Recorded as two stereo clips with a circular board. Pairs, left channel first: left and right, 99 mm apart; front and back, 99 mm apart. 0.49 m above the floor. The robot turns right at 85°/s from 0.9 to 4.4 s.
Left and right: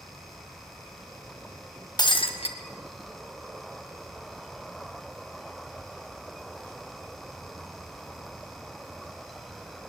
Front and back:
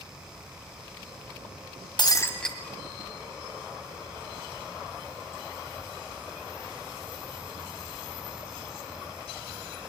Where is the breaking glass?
40° left, 1.7 m; by 2.6 s 90° left, 1.7 m.